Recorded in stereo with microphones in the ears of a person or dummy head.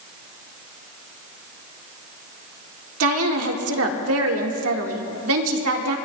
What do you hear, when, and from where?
3.0 s a woman speaking: 80° right, 1.7 m